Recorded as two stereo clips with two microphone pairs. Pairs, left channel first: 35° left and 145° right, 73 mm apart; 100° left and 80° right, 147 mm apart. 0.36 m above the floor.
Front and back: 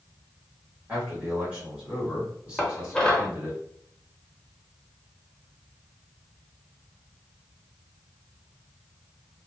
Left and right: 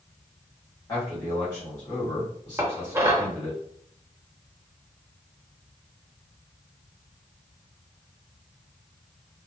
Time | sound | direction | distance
0.9 | a man speaking | 155° left | 1.7 m
2.6 | dishes clattering | 30° right | 0.7 m